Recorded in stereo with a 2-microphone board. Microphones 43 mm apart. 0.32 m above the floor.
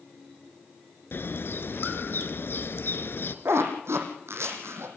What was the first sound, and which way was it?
A bird, 60° left (ahead or behind).